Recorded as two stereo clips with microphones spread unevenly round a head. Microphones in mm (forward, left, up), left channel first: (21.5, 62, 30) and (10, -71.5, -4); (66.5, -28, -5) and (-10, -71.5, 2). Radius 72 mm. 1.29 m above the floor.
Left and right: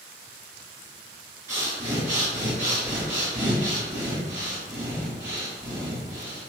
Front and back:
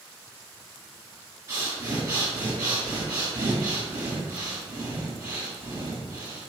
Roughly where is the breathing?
Behind.